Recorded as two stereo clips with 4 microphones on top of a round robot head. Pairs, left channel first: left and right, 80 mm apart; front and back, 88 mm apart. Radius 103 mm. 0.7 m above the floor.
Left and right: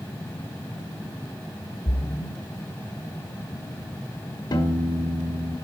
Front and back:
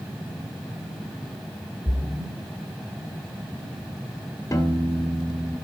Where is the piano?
60° left, 1.5 m.